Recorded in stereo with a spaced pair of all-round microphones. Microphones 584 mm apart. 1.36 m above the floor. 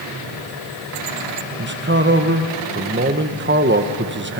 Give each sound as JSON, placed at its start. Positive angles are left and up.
{"t": 1.6, "sound": "a man speaking", "side_deg": -20, "distance_m": 1.0}